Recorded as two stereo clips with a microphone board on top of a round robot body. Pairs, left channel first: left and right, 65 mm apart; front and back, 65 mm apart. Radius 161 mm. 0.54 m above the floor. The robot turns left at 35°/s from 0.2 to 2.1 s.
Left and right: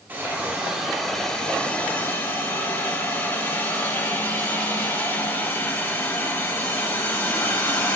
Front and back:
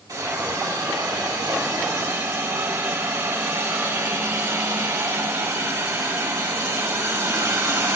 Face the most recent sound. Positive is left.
turn(degrees=140)